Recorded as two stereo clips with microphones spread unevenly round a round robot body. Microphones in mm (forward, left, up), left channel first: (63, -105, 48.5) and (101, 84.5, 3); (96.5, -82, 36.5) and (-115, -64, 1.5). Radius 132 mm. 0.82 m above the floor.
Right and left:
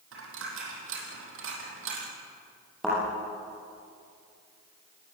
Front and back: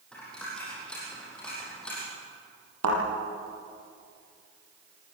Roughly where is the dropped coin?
Left.